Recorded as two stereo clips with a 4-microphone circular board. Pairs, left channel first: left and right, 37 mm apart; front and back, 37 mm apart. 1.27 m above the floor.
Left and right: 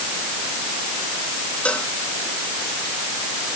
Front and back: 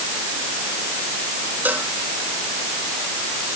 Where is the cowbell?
145° left.